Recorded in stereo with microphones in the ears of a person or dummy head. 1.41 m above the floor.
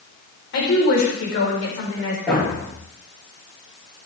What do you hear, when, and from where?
0.5 s a woman speaking: 65° left (ahead or behind), 4 m; by 2.2 s 80° left, 4 m
2.3 s a thud: centre (ahead or behind), 7 m